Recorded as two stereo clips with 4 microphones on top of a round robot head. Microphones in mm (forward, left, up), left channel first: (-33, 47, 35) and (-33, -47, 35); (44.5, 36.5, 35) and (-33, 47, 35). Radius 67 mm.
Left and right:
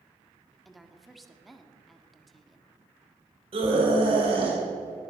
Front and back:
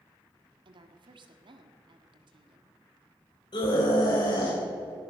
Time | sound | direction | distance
0.7 | a woman speaking | straight behind | 1.7 m
3.5 | a scream | 50° right | 3.5 m